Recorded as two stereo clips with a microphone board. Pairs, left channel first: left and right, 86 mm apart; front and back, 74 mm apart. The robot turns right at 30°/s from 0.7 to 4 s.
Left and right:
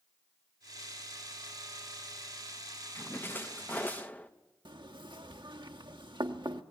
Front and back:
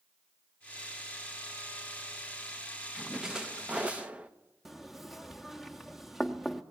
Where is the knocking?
90° right, 1.0 m.